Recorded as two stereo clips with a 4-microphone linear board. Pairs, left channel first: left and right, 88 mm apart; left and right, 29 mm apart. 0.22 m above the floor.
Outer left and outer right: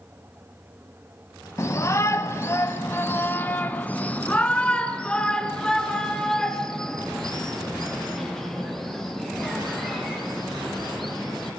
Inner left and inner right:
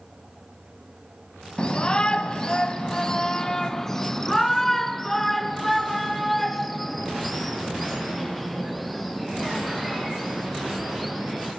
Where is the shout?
35° left (ahead or behind), 1.2 m; by 11.5 s centre (ahead or behind), 6 m.